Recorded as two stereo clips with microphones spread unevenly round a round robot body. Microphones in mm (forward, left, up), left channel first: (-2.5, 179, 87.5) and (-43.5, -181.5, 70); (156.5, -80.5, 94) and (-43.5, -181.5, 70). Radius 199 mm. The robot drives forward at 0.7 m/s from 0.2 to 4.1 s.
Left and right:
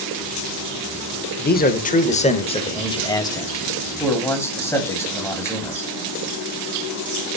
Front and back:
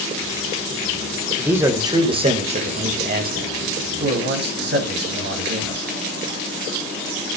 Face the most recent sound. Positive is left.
turn(degrees=165)